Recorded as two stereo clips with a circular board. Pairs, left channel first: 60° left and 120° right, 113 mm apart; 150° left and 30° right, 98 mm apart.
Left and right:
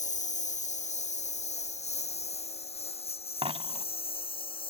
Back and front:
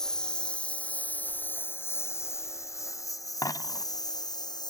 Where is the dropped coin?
155° right.